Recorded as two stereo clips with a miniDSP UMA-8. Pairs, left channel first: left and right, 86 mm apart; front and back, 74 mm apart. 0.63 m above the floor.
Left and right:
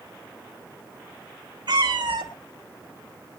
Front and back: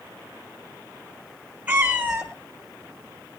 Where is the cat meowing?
110° right, 1.9 m.